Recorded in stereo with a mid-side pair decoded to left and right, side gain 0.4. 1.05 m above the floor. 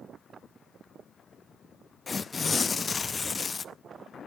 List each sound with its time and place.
2.1 s tearing paper: 40° left, 0.6 m